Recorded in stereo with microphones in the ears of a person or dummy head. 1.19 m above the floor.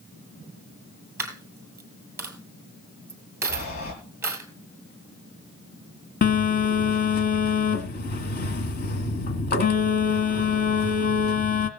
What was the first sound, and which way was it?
A dropped coin, 15° right (ahead or behind).